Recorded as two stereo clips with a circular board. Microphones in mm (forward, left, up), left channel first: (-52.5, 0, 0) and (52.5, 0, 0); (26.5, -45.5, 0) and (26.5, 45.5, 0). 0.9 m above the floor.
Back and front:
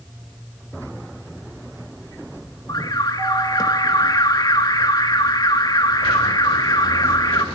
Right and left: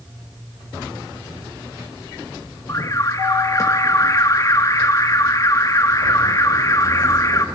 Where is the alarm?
135° right, 1.9 m.